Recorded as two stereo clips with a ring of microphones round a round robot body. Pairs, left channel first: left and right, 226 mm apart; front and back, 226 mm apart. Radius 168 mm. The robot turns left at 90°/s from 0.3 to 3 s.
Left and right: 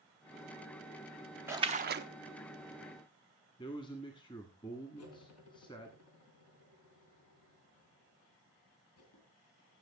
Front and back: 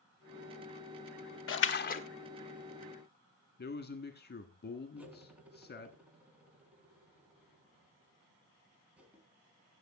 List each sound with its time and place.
1.5 s a splash: 10° right, 0.7 m; by 2.0 s 60° right, 0.7 m
3.6 s a man speaking: 25° left, 1.5 m
5.0 s cutlery clinking: 95° left, 3.5 m